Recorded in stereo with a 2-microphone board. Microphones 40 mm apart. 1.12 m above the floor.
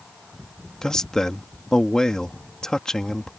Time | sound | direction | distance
0.8 | a man speaking | 15° left (ahead or behind) | ?